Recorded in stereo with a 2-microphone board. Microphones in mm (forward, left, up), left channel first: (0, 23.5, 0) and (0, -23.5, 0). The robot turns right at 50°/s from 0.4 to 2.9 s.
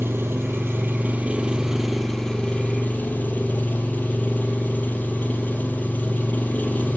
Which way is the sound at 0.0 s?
80° right.